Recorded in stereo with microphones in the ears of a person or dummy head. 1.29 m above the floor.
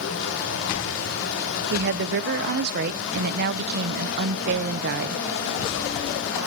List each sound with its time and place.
0.0 s running water: 70° left (ahead or behind), 1.6 m
1.7 s a woman speaking: 55° right (ahead or behind), 0.6 m